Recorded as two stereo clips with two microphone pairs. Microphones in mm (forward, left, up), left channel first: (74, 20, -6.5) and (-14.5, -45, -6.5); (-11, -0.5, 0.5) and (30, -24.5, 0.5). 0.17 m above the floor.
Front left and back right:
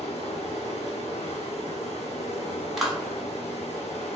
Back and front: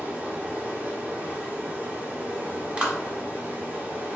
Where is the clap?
55° right, 1.0 m.